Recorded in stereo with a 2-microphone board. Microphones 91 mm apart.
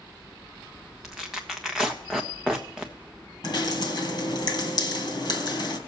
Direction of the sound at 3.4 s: 50° left (ahead or behind).